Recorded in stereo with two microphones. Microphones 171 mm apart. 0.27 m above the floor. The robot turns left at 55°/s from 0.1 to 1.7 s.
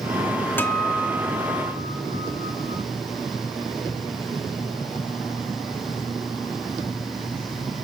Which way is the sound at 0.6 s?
20° left.